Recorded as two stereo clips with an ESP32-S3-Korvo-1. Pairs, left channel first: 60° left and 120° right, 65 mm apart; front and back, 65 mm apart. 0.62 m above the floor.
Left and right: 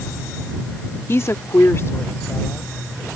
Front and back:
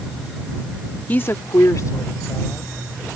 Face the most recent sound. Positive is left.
turn(degrees=15)